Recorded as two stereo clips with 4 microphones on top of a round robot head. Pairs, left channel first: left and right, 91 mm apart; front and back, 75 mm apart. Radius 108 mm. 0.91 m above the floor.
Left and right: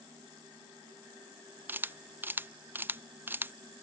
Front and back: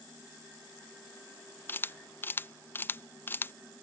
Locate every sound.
1.7 s a camera shutter: 40° right